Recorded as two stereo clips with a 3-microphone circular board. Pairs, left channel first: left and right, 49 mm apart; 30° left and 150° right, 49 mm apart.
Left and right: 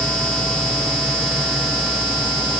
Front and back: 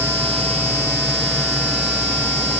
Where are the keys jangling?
I don't hear keys jangling.